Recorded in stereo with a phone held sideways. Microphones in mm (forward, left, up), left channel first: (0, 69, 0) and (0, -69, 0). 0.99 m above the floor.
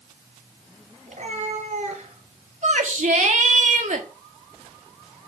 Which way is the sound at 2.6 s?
60° right (ahead or behind).